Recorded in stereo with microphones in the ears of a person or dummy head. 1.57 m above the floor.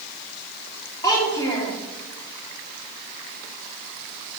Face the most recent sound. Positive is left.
turn(degrees=20)  # may be behind; listen again after turning